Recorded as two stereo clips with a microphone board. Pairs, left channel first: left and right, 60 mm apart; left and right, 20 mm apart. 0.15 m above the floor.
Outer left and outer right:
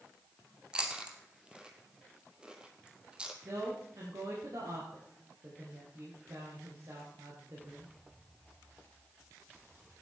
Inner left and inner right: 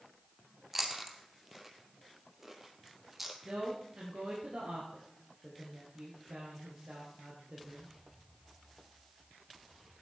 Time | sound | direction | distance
0.7 | chewing | 15° right (ahead or behind) | 1.6 m
3.5 | a woman speaking | 65° right (ahead or behind) | 3 m